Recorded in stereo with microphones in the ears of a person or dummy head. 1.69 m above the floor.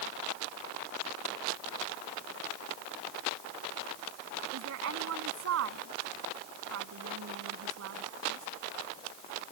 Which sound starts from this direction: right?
A woman speaking, at 4.5 s.